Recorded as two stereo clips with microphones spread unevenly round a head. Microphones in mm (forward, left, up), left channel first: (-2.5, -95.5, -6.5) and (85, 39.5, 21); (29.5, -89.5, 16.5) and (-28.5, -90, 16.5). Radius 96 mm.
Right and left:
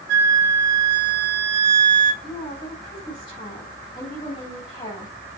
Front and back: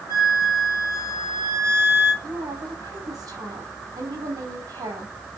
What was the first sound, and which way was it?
A flute, 40° left.